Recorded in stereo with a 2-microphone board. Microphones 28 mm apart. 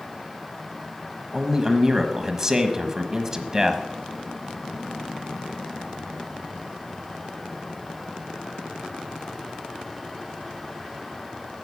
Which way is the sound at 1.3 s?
15° right (ahead or behind).